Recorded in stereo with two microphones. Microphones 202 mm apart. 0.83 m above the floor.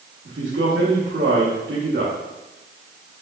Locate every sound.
0.2 s a man speaking: 65° right (ahead or behind), 1.2 m